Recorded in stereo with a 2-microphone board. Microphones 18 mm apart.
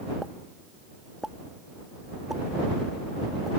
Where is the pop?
20° right (ahead or behind).